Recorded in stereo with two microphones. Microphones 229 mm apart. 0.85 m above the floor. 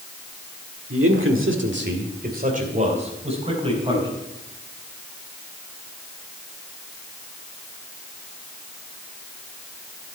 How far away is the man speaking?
About 1.8 m.